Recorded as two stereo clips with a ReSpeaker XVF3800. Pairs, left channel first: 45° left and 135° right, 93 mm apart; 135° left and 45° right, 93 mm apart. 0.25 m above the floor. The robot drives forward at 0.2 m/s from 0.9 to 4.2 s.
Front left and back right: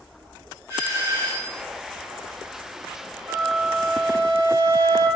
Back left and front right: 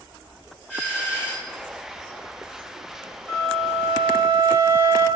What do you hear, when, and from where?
0.7 s a doorbell: 105° right, 1.9 m; by 1.6 s 115° right, 1.9 m
3.3 s a flute: 85° right, 1.9 m; by 5.1 s 95° right, 1.9 m